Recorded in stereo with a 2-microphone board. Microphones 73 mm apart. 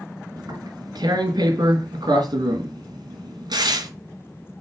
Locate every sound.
0.4 s tearing paper: 70° right (ahead or behind), 3.5 m